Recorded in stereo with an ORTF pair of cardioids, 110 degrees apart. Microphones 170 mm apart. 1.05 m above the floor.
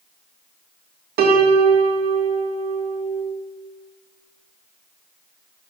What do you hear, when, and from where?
1.2 s a piano: 65° right, 2.5 m